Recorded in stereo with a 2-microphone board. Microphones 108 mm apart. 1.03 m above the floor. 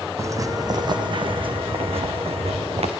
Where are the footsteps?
30° right (ahead or behind), 2.5 m; by 2.9 s 75° right (ahead or behind), 3.5 m.